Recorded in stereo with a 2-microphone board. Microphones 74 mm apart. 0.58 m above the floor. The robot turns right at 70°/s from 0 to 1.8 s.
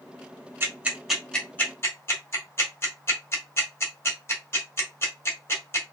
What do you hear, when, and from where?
0.6 s ticking: 35° right (ahead or behind), 1.8 m; by 5.9 s 35° left (ahead or behind), 1.8 m